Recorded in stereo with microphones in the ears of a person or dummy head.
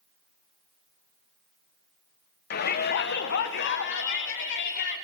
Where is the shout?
50° left (ahead or behind), 1.4 m; by 5.0 s 60° left (ahead or behind), 3.5 m.